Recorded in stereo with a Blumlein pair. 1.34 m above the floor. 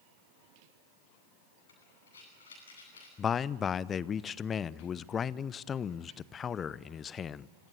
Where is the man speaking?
25° left, 0.7 m.